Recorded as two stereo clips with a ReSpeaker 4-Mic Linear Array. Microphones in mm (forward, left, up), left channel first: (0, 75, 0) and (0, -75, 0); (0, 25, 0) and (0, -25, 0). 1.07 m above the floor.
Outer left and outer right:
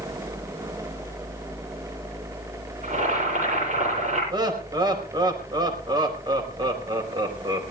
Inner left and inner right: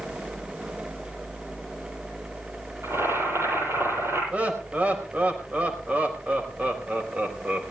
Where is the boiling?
60° right (ahead or behind), 10 m.